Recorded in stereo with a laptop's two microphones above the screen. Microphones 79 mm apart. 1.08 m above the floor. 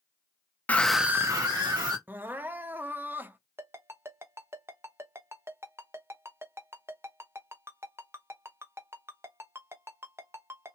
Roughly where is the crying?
Right.